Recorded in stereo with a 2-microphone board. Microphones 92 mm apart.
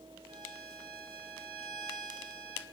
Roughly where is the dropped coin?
No dropped coin in this recording.